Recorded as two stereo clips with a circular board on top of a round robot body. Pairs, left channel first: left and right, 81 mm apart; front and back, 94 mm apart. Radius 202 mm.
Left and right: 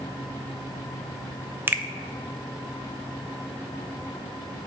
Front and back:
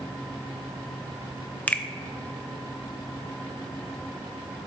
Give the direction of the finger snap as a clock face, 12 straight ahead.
2 o'clock.